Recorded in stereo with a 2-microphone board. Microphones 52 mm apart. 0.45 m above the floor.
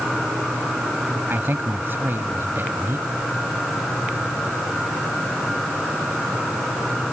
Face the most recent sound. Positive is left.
turn(degrees=-50)  # may be behind; listen again after turning